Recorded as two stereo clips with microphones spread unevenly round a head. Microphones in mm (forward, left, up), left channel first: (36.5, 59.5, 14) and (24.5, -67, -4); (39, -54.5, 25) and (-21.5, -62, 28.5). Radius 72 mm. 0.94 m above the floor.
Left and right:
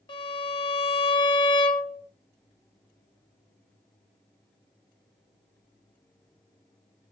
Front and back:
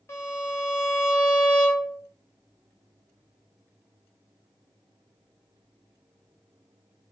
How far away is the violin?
About 1.1 m.